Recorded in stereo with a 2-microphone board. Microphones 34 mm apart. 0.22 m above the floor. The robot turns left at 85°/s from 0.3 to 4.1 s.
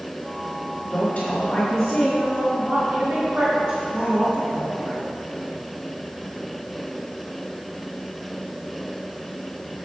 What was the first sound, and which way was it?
A woman speaking, 120° left.